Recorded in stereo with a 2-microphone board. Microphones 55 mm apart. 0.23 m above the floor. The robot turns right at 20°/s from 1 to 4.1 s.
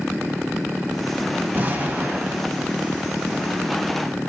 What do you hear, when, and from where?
1.5 s an explosion: 35° right (ahead or behind), 0.5 m; by 2.5 s 30° right (ahead or behind), 0.5 m